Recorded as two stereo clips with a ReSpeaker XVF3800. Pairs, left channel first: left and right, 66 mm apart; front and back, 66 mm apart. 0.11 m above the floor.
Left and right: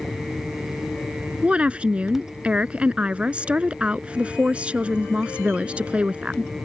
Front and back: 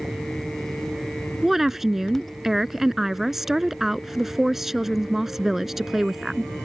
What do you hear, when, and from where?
1.4 s a woman speaking: 105° right